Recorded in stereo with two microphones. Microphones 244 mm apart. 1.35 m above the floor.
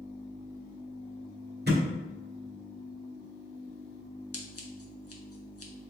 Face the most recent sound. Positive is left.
turn(degrees=70)  # may be behind; listen again after turning